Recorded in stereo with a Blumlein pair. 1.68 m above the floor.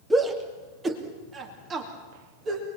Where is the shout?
10° right, 2.5 m; by 2.7 s 30° right, 3.5 m.